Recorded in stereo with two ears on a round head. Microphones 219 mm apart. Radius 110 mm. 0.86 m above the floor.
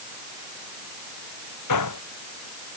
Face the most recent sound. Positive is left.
turn(degrees=85)